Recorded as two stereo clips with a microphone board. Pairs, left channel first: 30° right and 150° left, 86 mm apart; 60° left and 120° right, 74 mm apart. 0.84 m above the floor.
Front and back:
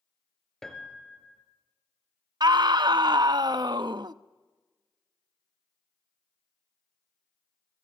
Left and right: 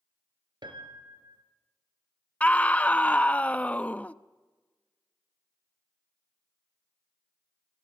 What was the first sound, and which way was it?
A piano, 115° right.